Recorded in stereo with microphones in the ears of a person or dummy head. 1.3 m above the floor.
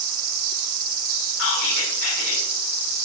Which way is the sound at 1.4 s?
90° left.